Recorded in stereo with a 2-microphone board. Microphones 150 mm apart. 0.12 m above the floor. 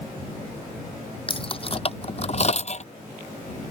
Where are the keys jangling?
35° left (ahead or behind); by 2.9 s 50° left (ahead or behind).